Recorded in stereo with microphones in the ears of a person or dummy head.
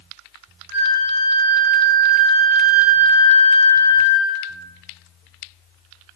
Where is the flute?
55° right (ahead or behind), 1.3 m.